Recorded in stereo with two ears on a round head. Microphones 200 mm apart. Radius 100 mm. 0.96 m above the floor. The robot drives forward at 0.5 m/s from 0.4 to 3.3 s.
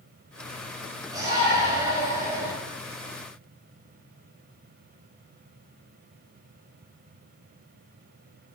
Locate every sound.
1.1 s a shout: 15° right (ahead or behind), 5 m